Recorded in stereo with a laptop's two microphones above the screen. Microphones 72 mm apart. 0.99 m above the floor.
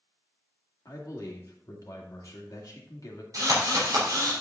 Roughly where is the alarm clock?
I don't hear an alarm clock.